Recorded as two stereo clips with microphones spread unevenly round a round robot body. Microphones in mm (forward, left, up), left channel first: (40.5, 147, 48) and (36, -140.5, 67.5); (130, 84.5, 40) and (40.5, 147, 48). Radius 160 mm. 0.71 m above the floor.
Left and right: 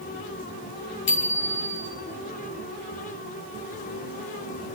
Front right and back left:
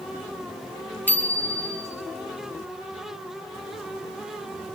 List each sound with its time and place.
1.1 s a bicycle bell: 40° left, 5.5 m